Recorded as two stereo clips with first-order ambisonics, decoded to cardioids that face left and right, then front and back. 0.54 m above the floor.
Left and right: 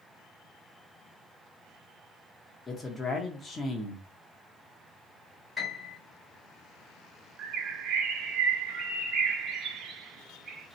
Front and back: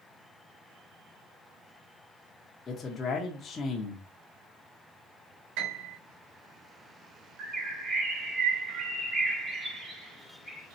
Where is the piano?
170° left, 3 m.